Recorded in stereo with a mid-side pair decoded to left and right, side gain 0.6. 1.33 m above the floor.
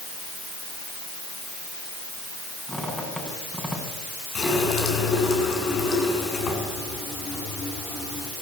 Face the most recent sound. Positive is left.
turn(degrees=45)